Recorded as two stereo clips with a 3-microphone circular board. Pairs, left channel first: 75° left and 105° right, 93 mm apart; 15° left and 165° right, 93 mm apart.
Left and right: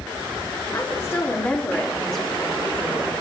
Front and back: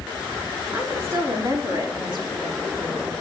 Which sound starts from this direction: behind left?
A woman speaking, at 0.7 s.